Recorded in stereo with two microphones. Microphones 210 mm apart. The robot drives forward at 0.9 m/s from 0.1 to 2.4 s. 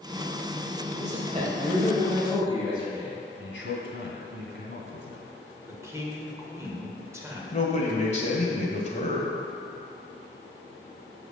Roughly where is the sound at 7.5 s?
Left.